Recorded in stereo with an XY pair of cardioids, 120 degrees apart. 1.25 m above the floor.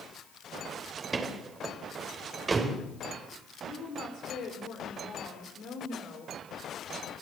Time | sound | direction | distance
1.0 | a door slam | 30° right | 3.5 m
3.6 | a woman speaking | 55° left | 5 m